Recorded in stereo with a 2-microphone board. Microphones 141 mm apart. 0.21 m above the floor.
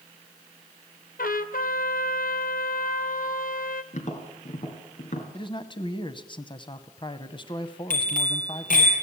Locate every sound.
1.2 s a trumpet: 90° left, 1.0 m
3.9 s tapping: 60° left (ahead or behind), 3 m
5.3 s a man speaking: 35° left (ahead or behind), 1.1 m
7.9 s a bicycle bell: 75° left (ahead or behind), 4.5 m